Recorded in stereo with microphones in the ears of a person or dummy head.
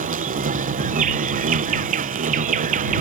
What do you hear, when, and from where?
0.0 s an insect: 40° right (ahead or behind)